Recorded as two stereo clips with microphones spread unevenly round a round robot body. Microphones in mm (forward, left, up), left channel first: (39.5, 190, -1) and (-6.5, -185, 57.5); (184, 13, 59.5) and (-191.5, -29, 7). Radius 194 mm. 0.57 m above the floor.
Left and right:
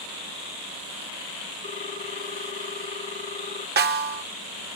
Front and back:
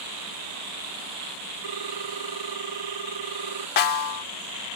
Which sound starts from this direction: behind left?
A ringtone, at 1.6 s.